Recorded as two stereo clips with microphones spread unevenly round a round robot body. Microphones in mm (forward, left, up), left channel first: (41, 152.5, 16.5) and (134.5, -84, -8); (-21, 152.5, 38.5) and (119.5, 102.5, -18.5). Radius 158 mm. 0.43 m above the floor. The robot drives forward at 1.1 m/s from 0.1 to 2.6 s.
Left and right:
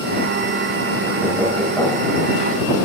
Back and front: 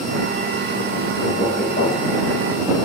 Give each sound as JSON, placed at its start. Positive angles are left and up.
{"t": 1.2, "sound": "knocking", "azimuth_deg": -150, "distance_m": 1.0}